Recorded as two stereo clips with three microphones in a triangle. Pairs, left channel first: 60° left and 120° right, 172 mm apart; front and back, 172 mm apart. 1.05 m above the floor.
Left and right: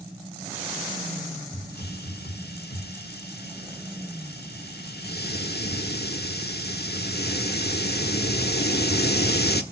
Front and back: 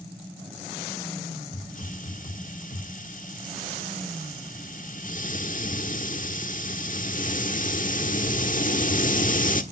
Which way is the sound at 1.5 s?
40° left.